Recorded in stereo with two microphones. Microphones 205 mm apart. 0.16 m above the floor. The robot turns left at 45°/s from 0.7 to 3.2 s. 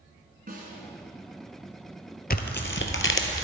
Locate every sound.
0.5 s a snare drum: 45° right (ahead or behind), 2.0 m
2.3 s tearing paper: 130° left, 0.9 m; by 3.5 s 90° left, 0.9 m